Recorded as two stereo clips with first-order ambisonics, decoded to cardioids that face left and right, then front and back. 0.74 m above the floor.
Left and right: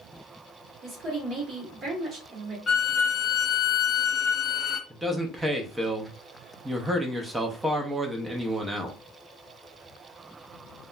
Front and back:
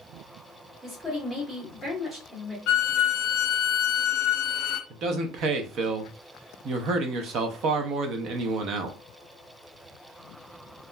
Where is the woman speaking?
110° right, 1.1 m.